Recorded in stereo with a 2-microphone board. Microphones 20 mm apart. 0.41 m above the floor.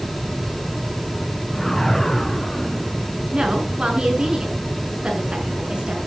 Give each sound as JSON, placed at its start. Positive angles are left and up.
{"t": 1.5, "sound": "a whoosh", "side_deg": 10, "distance_m": 2.5}
{"t": 3.3, "sound": "a woman speaking", "side_deg": -35, "distance_m": 5.5}